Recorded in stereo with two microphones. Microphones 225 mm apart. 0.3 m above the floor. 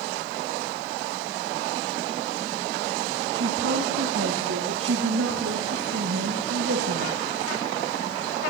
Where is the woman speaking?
70° right (ahead or behind), 3.5 m; by 7.2 s 75° right (ahead or behind), 6 m.